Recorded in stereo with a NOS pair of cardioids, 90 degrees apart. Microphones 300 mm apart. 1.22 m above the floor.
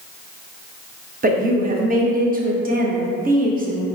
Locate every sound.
1.2 s a woman speaking: 30° right, 1.0 m